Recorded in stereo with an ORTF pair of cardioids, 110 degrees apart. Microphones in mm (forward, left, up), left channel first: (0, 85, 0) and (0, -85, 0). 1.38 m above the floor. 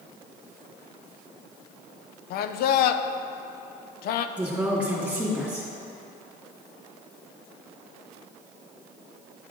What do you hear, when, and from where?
2.3 s a man speaking: 65° left, 0.5 m
4.4 s a woman speaking: 10° right, 2.5 m